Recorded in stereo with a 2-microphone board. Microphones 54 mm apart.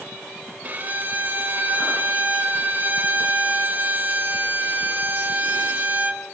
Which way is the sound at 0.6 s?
35° right (ahead or behind).